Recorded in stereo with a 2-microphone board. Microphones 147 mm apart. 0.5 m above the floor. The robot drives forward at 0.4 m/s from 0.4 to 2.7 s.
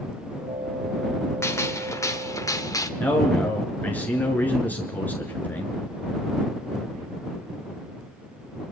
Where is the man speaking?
10° left (ahead or behind), 6 m.